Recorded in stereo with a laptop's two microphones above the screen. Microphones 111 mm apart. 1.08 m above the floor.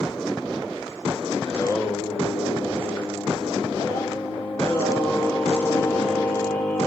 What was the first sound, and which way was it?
Singing, 20° left (ahead or behind).